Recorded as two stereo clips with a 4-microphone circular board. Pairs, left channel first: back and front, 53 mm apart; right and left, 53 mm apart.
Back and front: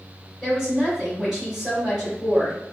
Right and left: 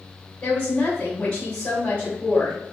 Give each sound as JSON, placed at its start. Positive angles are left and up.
{"t": 0.4, "sound": "a woman speaking", "azimuth_deg": -70, "distance_m": 1.6}